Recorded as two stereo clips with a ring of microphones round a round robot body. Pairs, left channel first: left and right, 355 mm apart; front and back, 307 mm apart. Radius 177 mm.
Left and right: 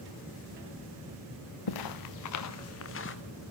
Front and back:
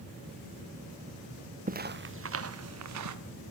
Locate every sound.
1.7 s footsteps: 115° left, 2 m; by 3.1 s 150° left, 3.5 m